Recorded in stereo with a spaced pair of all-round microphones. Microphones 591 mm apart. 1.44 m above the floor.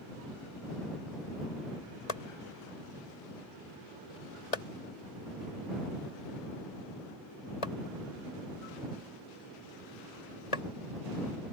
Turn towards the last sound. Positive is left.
turn(degrees=75)  # may be behind; listen again after turning